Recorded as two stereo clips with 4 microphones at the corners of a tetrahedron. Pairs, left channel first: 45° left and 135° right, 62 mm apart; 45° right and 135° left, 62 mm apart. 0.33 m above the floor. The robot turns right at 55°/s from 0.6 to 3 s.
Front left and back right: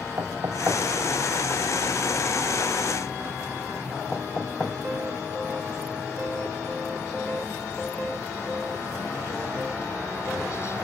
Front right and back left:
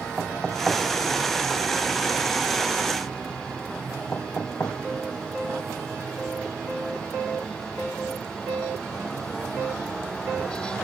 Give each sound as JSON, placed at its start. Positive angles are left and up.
{"t": 0.2, "sound": "knocking", "azimuth_deg": -145, "distance_m": 1.8}